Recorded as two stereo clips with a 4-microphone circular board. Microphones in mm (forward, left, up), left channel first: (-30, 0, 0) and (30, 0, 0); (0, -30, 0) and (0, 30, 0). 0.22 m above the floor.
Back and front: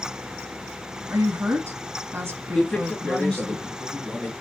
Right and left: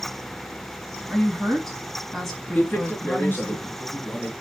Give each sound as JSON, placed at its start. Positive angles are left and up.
{"t": 1.1, "sound": "a woman speaking", "azimuth_deg": -5, "distance_m": 1.6}
{"t": 2.5, "sound": "a man speaking", "azimuth_deg": -115, "distance_m": 1.2}